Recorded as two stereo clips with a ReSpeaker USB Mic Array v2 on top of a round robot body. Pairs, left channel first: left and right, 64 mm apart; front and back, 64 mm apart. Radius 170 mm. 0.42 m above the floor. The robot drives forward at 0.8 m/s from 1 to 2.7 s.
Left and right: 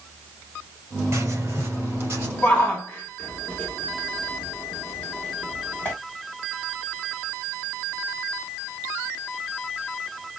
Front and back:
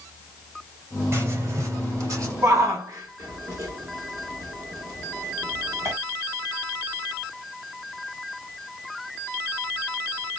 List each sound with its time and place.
1.1 s writing: 130° right, 2.5 m; by 2.3 s 145° right, 3 m
2.4 s a shout: 160° left, 1.6 m